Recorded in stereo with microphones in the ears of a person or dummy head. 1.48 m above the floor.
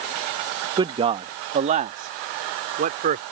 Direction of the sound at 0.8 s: 25° right (ahead or behind).